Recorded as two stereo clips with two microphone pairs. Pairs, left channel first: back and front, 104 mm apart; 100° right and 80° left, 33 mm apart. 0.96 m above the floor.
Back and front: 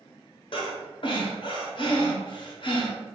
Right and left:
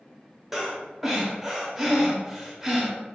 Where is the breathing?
165° left, 0.9 m.